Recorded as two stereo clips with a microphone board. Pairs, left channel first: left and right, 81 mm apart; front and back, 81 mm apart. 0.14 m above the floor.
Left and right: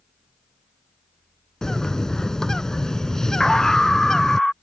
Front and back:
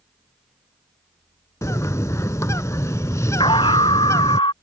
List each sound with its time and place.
1.6 s a bird: 10° left
3.4 s a scream: 5° left